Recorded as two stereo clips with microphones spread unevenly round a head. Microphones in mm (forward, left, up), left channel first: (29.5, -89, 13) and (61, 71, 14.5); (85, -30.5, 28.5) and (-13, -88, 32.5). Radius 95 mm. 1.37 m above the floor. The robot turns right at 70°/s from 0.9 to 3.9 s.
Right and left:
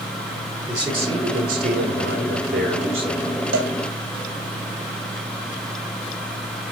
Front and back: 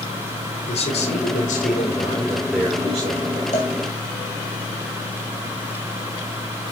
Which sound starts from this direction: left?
A cowbell, at 3.5 s.